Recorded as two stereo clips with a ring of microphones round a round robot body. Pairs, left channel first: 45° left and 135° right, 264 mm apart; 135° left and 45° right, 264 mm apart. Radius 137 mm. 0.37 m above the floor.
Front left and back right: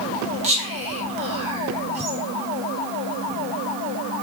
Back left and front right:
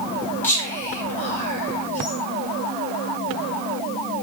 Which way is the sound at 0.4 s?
155° right.